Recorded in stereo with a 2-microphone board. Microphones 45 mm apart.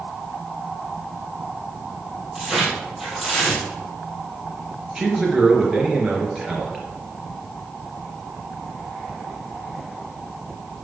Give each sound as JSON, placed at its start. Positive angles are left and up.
{"t": 2.4, "sound": "tearing paper", "side_deg": -5, "distance_m": 3.0}
{"t": 5.0, "sound": "a man speaking", "side_deg": -10, "distance_m": 3.0}